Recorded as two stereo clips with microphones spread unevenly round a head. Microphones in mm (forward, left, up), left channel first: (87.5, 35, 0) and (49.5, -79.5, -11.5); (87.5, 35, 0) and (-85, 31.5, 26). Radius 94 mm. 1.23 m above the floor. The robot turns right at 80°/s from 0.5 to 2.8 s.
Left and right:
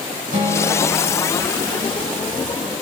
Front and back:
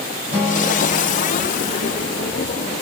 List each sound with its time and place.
0.3 s a guitar: 100° right, 6.5 m; by 1.4 s 25° right, 6.5 m